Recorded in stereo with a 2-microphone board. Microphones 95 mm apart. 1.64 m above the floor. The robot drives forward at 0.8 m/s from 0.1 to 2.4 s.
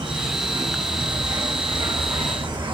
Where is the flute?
I don't hear a flute.